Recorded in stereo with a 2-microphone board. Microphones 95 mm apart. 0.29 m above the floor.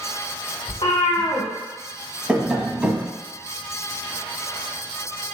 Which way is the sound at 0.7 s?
65° left (ahead or behind).